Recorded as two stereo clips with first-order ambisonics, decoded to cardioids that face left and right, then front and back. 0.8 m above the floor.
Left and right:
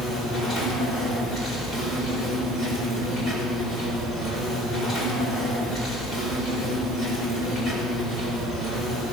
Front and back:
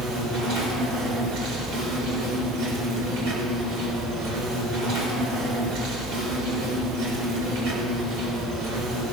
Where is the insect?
175° left, 4.5 m.